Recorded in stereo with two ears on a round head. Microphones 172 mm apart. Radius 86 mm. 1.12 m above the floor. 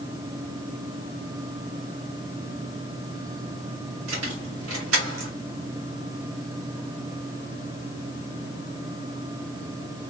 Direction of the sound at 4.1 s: 80° right.